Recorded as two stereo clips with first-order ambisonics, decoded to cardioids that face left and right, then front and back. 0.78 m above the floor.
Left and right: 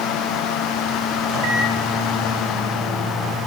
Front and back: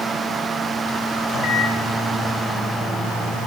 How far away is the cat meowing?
No cat meowing in this recording.